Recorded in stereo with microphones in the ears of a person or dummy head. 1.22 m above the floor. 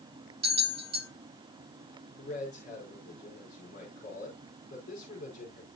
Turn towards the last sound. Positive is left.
turn(degrees=55)  # may be behind; listen again after turning